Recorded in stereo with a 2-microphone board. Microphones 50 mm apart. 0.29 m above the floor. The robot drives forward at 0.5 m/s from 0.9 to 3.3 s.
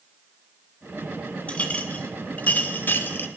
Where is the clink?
25° left (ahead or behind), 1.5 m; by 3.3 s 50° left (ahead or behind), 0.9 m.